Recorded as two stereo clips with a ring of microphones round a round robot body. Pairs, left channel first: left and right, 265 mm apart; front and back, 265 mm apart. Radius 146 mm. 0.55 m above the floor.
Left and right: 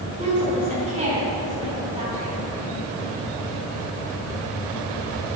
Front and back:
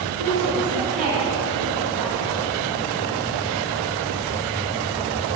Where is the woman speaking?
155° right, 4 m.